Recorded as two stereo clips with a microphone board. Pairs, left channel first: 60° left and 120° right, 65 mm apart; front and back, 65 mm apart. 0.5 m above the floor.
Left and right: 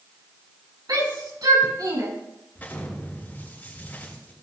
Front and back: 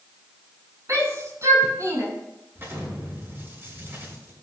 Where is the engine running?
I don't hear an engine running.